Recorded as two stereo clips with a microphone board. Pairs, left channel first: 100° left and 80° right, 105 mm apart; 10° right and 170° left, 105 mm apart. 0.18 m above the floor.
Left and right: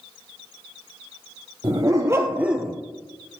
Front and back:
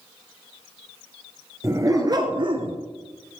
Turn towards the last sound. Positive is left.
turn(degrees=-175)